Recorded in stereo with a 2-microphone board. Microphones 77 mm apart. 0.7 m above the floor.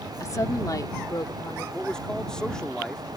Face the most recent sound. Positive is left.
turn(degrees=10)  # may be behind; listen again after turning